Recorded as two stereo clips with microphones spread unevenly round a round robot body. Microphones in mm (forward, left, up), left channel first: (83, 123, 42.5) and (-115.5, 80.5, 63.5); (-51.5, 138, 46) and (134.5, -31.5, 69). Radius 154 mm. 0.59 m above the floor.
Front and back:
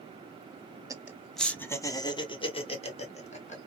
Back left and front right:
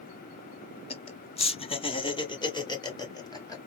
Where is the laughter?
120° left, 0.8 m; by 3.6 s 65° left, 2 m.